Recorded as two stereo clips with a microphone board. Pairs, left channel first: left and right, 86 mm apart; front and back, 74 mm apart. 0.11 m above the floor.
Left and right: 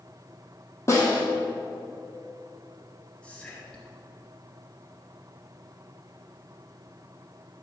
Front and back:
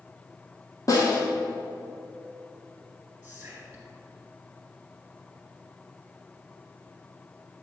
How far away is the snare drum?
About 1.7 m.